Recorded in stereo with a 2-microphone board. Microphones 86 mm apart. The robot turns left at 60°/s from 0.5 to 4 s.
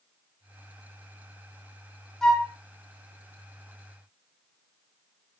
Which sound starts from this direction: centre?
A flute, at 2.2 s.